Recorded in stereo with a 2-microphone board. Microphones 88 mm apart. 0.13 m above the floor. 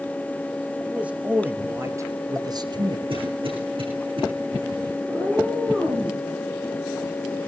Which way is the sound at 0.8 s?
10° right (ahead or behind).